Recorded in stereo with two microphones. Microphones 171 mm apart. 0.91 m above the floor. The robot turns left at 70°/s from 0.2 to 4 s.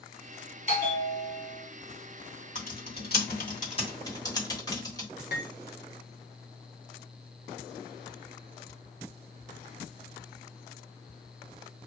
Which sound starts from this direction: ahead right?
A bell, at 0.7 s.